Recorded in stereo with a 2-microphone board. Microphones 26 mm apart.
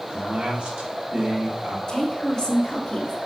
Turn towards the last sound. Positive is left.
turn(degrees=25)  # may be behind; listen again after turning